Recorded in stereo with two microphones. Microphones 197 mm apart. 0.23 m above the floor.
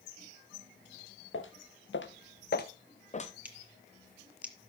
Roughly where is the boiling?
I don't hear boiling.